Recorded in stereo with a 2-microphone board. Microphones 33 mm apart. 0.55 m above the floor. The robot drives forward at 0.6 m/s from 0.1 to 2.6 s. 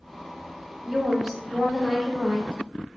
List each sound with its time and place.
0.8 s a woman speaking: 10° right (ahead or behind), 0.7 m; by 2.6 s 5° right (ahead or behind), 1.6 m